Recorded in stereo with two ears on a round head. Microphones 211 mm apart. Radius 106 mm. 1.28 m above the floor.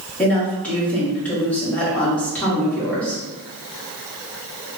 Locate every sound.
0.2 s a woman speaking: 5° left (ahead or behind), 1.2 m